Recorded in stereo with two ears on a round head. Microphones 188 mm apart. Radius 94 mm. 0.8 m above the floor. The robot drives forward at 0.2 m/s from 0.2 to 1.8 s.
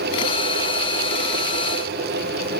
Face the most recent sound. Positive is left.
No sound to turn to.